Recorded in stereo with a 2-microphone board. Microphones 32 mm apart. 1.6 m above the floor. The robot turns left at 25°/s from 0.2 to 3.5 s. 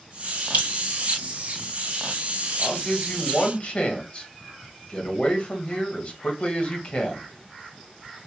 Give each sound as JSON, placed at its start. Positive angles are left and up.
{"t": 0.5, "sound": "dripping", "side_deg": -60, "distance_m": 2.5}
{"t": 2.6, "sound": "a man speaking", "side_deg": 15, "distance_m": 1.3}